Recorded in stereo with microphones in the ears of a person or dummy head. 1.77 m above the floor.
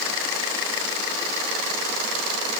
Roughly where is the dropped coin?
No dropped coin in this recording.